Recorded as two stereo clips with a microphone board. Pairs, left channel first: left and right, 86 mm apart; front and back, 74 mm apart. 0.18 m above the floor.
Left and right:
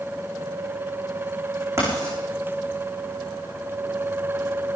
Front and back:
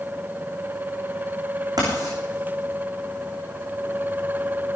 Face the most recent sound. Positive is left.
turn(degrees=-145)